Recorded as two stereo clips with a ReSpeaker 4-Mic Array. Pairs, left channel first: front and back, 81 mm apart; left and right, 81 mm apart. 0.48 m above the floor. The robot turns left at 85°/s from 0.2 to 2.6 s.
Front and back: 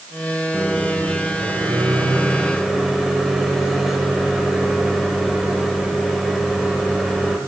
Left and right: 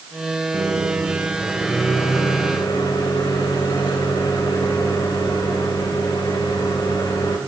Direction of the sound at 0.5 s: 90° right.